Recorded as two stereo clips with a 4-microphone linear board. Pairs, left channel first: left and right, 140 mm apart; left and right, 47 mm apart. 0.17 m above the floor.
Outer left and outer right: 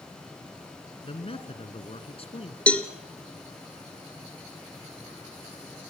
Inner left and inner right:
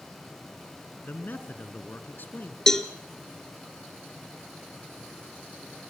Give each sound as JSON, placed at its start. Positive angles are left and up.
{"t": 1.0, "sound": "a man speaking", "side_deg": 45, "distance_m": 2.5}
{"t": 2.7, "sound": "a cowbell", "side_deg": 10, "distance_m": 1.8}